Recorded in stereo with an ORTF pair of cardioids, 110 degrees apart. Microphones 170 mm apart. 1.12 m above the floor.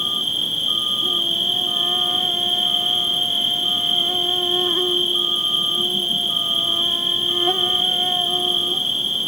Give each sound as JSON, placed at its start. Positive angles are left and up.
{"t": 0.0, "sound": "an insect", "azimuth_deg": 0, "distance_m": 0.9}